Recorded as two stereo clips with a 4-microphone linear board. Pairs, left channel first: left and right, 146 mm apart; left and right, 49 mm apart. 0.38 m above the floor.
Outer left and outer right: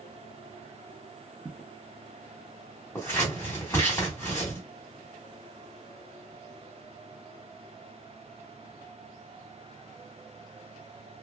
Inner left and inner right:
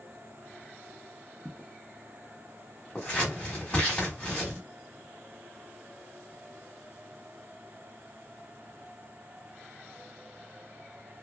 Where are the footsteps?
25° right (ahead or behind), 1.0 m.